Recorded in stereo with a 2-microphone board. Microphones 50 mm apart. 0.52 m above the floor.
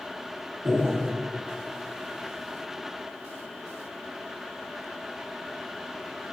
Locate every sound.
0.7 s breathing: 70° right (ahead or behind), 3 m